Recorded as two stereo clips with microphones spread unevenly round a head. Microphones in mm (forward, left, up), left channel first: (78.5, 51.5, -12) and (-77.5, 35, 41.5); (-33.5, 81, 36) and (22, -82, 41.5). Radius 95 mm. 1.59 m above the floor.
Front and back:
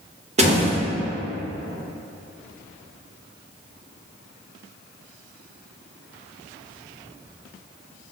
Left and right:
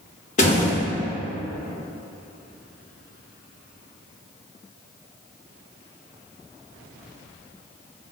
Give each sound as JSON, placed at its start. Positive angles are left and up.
{"t": 0.4, "sound": "a door slam", "azimuth_deg": 160, "distance_m": 1.3}